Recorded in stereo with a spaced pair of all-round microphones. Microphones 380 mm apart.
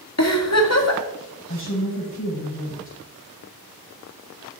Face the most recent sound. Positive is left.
turn(degrees=30)  # may be behind; listen again after turning